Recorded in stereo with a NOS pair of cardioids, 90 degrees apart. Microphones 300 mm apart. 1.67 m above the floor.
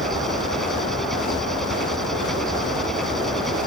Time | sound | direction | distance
0.0 | an engine running | straight ahead | ?